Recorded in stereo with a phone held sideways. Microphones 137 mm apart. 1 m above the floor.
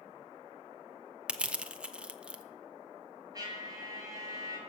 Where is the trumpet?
30° right (ahead or behind), 7 m.